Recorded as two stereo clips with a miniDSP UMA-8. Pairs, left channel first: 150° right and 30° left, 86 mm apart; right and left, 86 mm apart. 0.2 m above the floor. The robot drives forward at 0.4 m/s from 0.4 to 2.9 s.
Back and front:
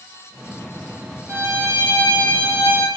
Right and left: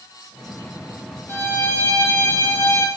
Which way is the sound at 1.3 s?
25° right.